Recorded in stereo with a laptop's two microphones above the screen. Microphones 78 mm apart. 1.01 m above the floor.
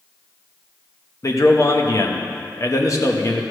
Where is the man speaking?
45° left (ahead or behind), 0.9 m.